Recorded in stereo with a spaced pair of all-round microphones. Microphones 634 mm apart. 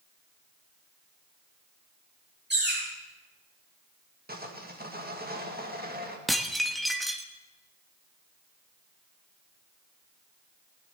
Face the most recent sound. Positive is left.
turn(degrees=0)  # may be behind; listen again after turning